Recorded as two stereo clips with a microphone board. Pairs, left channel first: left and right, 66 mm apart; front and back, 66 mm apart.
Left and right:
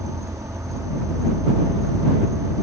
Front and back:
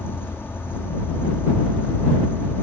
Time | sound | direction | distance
0.0 | an insect | 55° right | ?